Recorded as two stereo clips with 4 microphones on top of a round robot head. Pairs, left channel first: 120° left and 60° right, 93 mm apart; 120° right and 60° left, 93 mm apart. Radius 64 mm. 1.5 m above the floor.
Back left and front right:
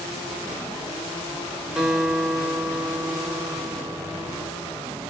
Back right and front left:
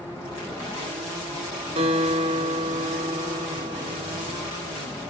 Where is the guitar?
30° left, 3.5 m.